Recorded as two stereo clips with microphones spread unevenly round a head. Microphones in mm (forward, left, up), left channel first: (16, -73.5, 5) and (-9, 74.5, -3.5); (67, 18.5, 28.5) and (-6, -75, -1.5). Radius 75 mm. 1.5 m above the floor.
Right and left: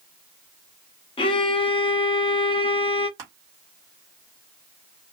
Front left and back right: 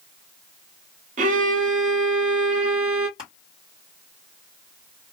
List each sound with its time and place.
1.2 s a violin: 140° right, 0.7 m
3.2 s crushing: 170° left, 1.7 m